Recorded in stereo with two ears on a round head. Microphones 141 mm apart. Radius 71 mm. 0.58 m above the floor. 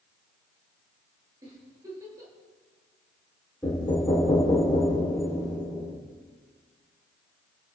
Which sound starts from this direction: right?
A giggle, at 1.4 s.